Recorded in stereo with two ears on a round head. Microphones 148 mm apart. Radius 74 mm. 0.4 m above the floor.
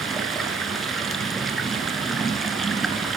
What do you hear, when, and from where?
0.0 s running water: centre (ahead or behind), 1.5 m